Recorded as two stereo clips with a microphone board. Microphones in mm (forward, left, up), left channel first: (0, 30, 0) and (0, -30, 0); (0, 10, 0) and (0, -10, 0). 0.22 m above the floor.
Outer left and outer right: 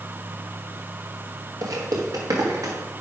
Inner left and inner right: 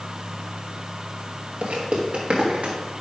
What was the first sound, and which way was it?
Footsteps, 75° right (ahead or behind).